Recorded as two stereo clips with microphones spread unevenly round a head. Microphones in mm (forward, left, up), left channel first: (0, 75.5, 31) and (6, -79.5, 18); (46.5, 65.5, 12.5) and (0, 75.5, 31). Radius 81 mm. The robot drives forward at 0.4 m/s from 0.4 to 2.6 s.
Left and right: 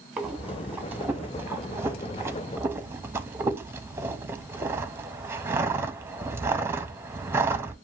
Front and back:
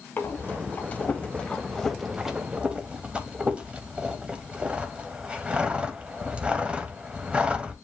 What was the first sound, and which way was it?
Breathing, 15° right.